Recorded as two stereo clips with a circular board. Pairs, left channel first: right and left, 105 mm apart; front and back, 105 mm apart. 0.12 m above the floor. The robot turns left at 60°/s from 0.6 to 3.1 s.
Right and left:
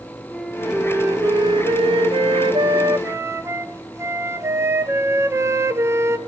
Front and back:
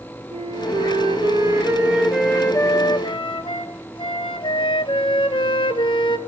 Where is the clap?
I don't hear a clap.